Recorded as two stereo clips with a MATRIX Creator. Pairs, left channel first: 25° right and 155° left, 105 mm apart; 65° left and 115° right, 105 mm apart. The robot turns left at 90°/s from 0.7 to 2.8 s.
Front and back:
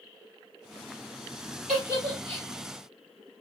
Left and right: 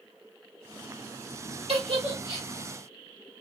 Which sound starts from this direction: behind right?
A giggle, at 1.7 s.